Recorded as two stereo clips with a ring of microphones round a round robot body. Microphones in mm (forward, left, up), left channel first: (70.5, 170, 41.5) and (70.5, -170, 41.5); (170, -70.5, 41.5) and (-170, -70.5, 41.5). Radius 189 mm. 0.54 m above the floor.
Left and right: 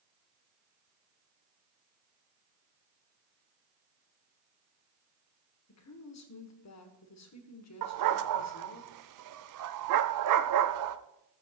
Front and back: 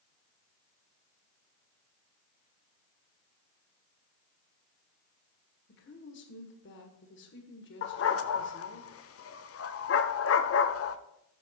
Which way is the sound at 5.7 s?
55° left.